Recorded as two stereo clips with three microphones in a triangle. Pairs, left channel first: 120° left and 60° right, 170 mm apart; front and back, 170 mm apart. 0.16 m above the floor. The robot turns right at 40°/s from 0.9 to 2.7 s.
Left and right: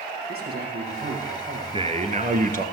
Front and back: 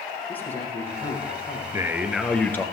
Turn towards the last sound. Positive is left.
turn(degrees=-70)